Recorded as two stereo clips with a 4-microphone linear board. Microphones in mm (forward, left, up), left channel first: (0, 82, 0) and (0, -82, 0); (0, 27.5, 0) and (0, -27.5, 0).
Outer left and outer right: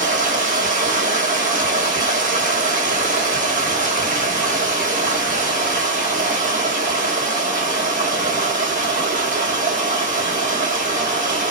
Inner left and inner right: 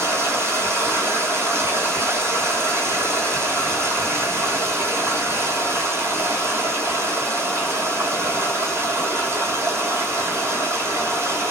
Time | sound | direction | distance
0.0 | running water | 55° right (ahead or behind) | 1.0 m